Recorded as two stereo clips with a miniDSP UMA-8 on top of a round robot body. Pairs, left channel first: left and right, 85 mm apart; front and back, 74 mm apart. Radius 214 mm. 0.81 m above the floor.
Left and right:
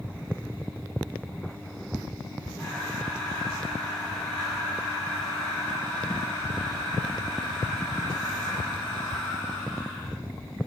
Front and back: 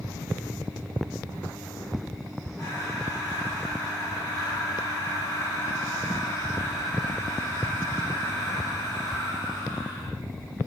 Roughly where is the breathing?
Ahead left.